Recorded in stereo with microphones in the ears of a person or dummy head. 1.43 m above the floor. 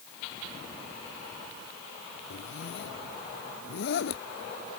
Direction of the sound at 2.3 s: 75° left (ahead or behind).